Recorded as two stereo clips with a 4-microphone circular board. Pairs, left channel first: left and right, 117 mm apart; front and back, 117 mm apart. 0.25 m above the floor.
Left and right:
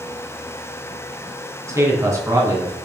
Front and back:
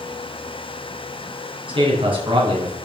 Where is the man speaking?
150° right, 3 m.